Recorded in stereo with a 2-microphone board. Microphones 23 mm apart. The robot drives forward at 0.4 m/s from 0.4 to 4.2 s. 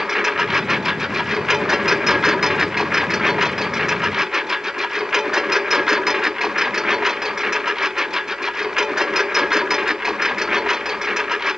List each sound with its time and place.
0.0 s a lawn mower: 15° right (ahead or behind); by 11.6 s 25° right (ahead or behind)